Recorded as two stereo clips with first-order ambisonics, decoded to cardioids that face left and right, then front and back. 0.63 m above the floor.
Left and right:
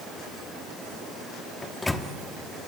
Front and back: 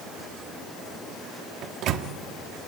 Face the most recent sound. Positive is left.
turn(degrees=170)